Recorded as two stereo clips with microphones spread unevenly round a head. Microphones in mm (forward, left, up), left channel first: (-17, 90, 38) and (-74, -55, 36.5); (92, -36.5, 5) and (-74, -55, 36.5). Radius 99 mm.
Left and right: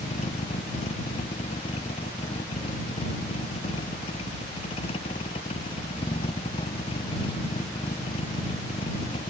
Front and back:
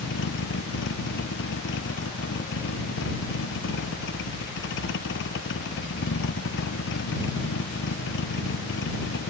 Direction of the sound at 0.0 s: 10° left.